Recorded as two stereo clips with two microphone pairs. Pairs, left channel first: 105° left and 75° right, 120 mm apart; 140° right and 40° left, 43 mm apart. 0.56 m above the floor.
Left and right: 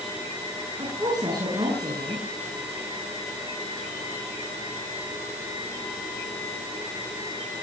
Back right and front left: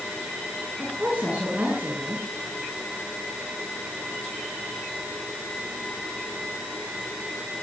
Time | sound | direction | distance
0.8 | a woman speaking | 20° right | 8 m